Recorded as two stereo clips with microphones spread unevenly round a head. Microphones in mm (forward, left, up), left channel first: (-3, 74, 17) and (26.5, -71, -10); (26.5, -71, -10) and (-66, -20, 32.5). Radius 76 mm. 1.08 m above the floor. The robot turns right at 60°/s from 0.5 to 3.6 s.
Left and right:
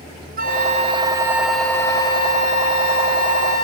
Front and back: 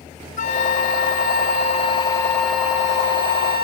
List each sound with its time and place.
0.4 s a flute: 45° right; by 3.6 s 140° left